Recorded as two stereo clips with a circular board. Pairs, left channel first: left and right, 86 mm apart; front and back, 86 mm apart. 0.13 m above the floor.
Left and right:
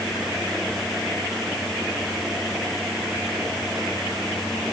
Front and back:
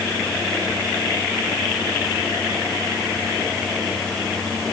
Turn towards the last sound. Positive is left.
No sound to turn to.